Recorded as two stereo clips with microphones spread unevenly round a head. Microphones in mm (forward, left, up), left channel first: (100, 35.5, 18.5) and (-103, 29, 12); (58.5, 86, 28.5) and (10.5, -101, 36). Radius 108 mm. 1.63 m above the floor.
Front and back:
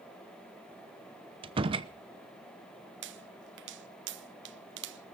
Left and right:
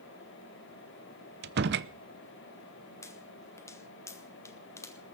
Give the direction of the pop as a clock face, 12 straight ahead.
7 o'clock.